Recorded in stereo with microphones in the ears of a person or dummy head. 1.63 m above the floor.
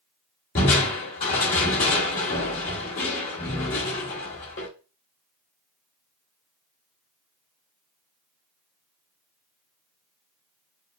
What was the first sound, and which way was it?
Crushing, 25° left (ahead or behind).